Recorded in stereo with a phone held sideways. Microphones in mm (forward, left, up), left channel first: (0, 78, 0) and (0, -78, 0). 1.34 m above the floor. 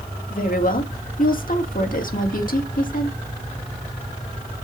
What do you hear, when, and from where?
0.3 s a woman speaking: 60° left (ahead or behind), 2.5 m